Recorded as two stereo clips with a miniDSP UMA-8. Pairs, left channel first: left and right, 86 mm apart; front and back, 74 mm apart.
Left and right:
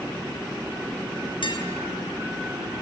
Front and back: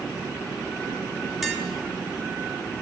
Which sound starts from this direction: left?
Tapping, at 1.4 s.